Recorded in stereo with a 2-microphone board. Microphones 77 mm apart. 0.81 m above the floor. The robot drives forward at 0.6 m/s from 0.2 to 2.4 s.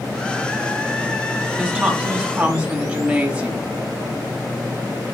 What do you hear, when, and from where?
1.6 s a woman speaking: 10° right (ahead or behind), 4.5 m